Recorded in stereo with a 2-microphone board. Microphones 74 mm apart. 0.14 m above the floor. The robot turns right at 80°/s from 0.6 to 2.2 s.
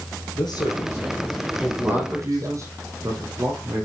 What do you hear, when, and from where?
0.3 s a man speaking: 95° left, 3.5 m; by 2.6 s 135° right, 3.5 m
1.8 s a man speaking: 15° right (ahead or behind), 5 m; by 3.9 s 45° right (ahead or behind), 5 m